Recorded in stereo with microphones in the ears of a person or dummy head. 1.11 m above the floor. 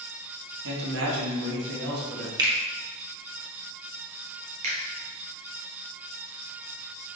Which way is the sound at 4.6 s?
40° right (ahead or behind).